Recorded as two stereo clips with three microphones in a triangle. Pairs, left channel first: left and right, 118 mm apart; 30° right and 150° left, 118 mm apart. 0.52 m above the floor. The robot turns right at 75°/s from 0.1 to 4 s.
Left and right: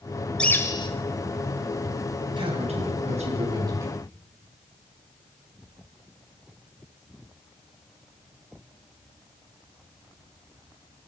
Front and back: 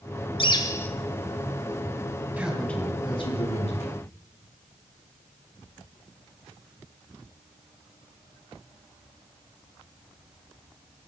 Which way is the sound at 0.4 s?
10° left.